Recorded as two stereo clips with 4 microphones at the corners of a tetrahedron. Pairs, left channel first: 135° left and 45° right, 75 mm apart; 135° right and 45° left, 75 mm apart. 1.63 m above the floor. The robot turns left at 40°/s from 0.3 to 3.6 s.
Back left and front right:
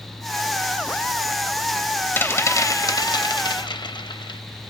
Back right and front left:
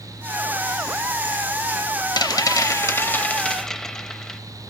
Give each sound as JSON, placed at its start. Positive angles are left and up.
{"t": 2.2, "sound": "a rattle", "azimuth_deg": -160, "distance_m": 0.6}